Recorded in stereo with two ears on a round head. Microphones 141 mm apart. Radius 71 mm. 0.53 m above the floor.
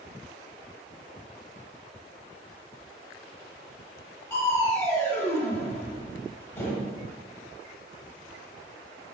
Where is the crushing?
15° left (ahead or behind), 1.3 m.